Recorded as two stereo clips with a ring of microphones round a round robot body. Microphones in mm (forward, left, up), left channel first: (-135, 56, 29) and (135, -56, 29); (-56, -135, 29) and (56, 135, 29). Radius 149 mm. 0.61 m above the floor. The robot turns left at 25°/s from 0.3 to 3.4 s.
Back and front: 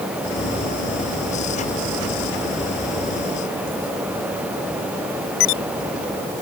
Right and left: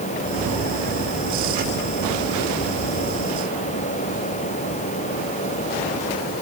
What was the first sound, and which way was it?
Only background noise.